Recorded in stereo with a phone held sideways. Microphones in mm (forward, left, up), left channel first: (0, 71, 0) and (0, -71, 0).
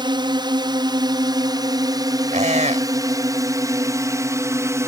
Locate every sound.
0.0 s a drone: 35° right (ahead or behind); by 4.9 s 20° right (ahead or behind)
2.3 s a squeak: 60° right (ahead or behind)